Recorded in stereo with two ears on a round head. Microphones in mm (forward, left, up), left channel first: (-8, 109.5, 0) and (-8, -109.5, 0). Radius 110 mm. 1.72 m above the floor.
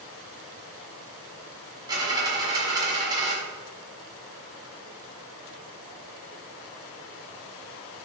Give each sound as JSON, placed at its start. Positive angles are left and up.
{"t": 1.9, "sound": "a dropped coin", "side_deg": -15, "distance_m": 1.8}